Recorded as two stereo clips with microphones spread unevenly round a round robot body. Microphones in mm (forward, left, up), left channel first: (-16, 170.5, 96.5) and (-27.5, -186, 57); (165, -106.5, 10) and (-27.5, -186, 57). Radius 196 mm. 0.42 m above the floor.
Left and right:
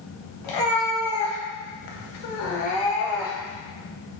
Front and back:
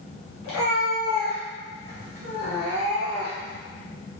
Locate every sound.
0.4 s a cat meowing: 60° left, 1.4 m; by 3.6 s 170° right, 1.1 m